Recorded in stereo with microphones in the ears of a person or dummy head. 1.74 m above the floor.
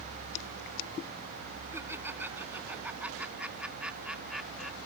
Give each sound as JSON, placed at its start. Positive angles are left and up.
{"t": 1.7, "sound": "laughter", "side_deg": -10}